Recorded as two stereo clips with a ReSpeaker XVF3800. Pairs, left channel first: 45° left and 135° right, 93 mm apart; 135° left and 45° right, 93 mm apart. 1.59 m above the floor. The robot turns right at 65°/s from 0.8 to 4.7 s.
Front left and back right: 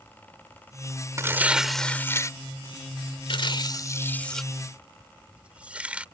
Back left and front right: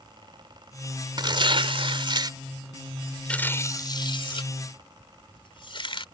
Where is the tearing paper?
80° right; by 6.0 s 150° left.